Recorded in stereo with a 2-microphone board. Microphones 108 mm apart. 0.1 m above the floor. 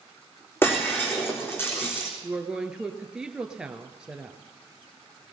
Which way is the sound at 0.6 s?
20° left (ahead or behind).